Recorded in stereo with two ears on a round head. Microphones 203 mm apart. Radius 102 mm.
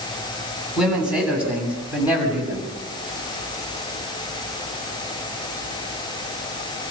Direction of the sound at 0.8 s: 5° right (ahead or behind).